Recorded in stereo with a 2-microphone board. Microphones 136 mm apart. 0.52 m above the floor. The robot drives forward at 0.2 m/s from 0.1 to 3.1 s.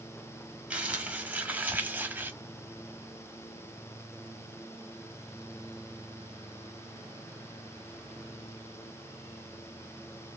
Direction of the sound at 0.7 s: 10° right (ahead or behind).